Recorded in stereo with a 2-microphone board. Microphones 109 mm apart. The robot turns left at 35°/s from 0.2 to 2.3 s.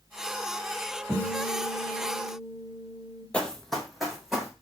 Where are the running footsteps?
10° left (ahead or behind), 0.6 m; by 4.5 s 5° right (ahead or behind), 1.8 m.